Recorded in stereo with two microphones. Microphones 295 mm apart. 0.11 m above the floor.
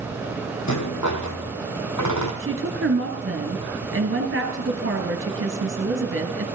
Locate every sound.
0.7 s a rattle: 75° left (ahead or behind), 1.9 m
2.4 s a woman speaking: 45° right (ahead or behind), 1.8 m